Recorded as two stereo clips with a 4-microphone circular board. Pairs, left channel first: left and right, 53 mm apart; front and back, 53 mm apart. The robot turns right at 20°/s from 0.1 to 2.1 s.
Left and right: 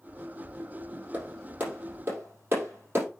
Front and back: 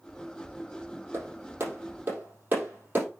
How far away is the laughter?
No laughter in this recording.